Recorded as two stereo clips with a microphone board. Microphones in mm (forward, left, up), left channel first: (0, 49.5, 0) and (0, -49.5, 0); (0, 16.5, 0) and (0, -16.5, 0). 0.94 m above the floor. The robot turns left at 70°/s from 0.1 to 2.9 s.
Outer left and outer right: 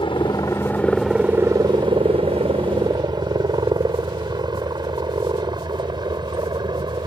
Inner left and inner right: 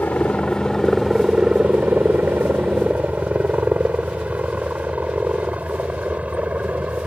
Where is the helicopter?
55° left (ahead or behind); by 7.1 s 45° right (ahead or behind).